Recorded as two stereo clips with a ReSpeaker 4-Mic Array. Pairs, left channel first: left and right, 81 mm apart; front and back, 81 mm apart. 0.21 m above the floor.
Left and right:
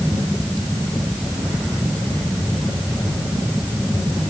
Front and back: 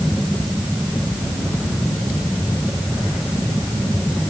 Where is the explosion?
I don't hear an explosion.